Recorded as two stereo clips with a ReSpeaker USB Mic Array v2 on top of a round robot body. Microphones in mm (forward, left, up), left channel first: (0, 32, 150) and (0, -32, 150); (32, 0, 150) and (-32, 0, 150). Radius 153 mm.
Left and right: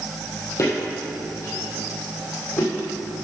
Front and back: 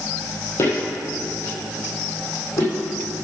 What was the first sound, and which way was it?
Footsteps, 50° left.